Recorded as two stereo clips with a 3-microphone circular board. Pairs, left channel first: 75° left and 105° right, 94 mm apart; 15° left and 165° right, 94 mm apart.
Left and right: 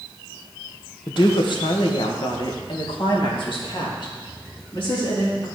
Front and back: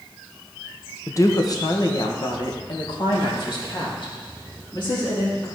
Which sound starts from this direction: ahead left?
A woman speaking, at 1.1 s.